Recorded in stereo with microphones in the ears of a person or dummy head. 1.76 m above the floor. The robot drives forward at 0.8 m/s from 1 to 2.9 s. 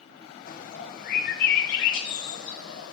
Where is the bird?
55° left (ahead or behind), 1.7 m; by 2.9 s 70° left (ahead or behind), 1.5 m.